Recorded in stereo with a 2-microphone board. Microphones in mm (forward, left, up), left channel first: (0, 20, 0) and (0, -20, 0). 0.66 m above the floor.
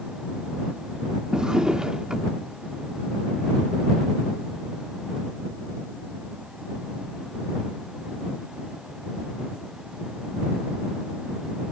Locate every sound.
1.3 s a drawer: 20° right (ahead or behind)